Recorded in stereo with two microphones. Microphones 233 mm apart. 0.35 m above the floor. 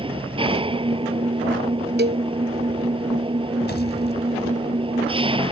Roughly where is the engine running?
Right.